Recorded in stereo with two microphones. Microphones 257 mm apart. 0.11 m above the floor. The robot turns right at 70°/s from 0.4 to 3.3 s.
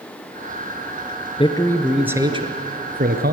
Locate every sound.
1.4 s a man speaking: 145° left, 1.4 m; by 3.3 s 80° right, 1.4 m